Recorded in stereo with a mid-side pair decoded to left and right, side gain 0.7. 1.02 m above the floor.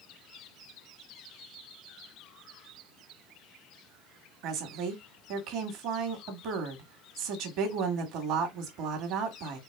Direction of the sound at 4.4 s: 60° right.